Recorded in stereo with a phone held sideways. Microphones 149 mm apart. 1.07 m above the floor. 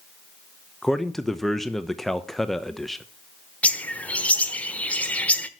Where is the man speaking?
5° left (ahead or behind), 0.8 m.